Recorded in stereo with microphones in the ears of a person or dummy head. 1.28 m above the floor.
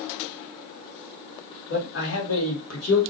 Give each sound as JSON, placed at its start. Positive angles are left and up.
{"t": 1.7, "sound": "a man speaking", "side_deg": 70, "distance_m": 2.0}